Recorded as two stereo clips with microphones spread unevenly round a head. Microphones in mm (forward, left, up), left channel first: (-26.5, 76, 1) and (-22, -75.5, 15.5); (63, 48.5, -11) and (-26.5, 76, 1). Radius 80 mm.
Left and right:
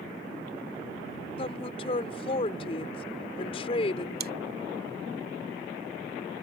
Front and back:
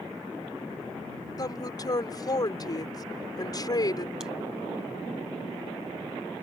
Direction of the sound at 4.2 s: 115° right.